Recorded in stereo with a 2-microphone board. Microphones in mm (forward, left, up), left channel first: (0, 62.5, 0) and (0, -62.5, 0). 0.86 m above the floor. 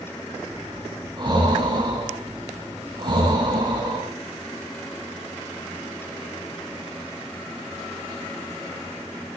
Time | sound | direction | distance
0.5 | breathing | 35° right (ahead or behind) | 4.5 m